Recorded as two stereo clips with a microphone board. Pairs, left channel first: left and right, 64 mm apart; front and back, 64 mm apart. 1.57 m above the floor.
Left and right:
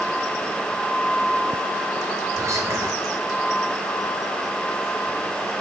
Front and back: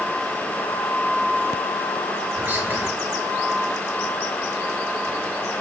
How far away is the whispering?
About 2 m.